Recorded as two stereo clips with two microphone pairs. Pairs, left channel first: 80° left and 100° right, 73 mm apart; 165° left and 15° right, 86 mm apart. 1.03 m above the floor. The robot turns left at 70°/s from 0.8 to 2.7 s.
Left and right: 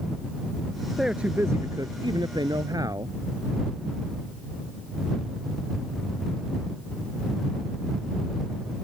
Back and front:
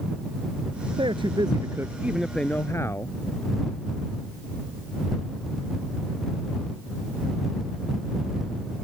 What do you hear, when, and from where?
1.0 s a man speaking: 15° right; by 3.1 s 135° right